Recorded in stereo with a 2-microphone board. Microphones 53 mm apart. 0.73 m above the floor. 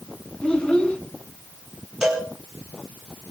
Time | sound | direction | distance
0.4 | a child speaking | 15° left (ahead or behind) | 4 m
2.0 | a cowbell | 10° right (ahead or behind) | 5 m